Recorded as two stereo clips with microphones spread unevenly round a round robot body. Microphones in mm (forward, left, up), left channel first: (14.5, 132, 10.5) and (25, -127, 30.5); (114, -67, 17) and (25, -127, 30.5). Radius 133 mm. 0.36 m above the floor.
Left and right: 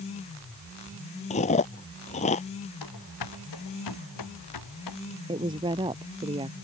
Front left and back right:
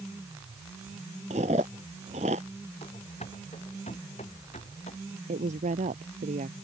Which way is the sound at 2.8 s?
100° left.